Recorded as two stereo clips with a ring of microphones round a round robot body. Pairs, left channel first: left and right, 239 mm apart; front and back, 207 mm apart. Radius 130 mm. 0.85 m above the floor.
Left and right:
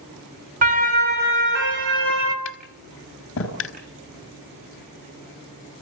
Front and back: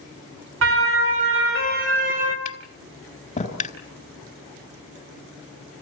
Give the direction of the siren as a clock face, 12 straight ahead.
5 o'clock.